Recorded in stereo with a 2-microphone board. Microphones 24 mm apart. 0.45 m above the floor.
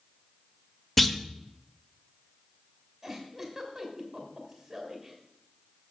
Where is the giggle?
5° right (ahead or behind), 2.5 m.